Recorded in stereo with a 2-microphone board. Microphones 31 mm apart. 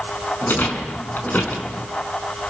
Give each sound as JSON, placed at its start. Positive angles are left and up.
{"t": 0.4, "sound": "a rattle", "side_deg": 70, "distance_m": 5.0}